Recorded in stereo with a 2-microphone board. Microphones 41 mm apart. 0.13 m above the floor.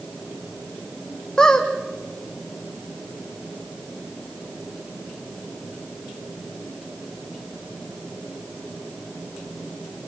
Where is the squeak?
20° left (ahead or behind), 2 m.